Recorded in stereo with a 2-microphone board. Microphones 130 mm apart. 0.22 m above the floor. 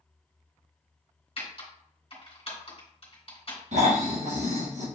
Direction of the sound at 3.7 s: 70° right (ahead or behind).